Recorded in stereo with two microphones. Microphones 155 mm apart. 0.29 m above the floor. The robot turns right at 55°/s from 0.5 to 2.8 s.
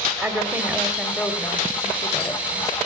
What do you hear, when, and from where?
0.2 s a woman speaking: 10° right (ahead or behind), 0.9 m; by 2.8 s 25° left (ahead or behind), 0.9 m